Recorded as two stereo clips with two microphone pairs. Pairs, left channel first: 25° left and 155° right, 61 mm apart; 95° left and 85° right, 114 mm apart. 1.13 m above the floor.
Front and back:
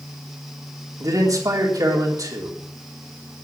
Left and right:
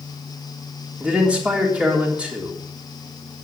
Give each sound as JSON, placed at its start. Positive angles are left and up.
{"t": 1.0, "sound": "a man speaking", "azimuth_deg": -165, "distance_m": 3.5}